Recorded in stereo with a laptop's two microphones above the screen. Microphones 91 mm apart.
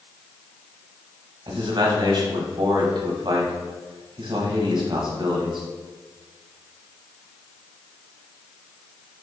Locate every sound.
1.5 s a man speaking: 55° right (ahead or behind), 0.9 m